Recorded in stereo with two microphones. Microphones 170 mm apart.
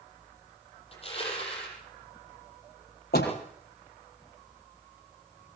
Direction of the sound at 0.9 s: 35° left (ahead or behind).